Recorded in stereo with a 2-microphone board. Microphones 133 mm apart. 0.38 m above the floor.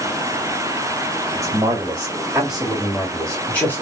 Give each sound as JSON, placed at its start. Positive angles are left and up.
{"t": 1.4, "sound": "a man speaking", "side_deg": -20, "distance_m": 2.0}